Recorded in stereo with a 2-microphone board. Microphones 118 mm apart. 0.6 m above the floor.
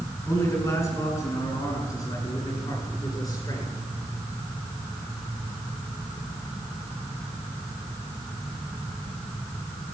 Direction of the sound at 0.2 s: 25° left (ahead or behind).